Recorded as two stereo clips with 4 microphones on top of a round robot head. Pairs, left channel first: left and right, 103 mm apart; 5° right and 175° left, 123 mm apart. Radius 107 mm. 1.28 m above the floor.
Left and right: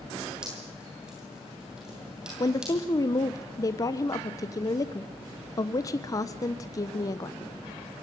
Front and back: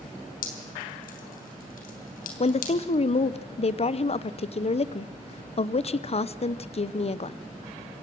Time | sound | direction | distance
0.4 | dripping | 5° right | 3 m
2.4 | a woman speaking | 30° left | 0.9 m